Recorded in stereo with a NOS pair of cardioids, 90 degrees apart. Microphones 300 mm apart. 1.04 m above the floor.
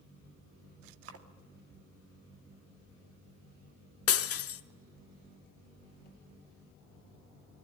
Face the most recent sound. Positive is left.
turn(degrees=50)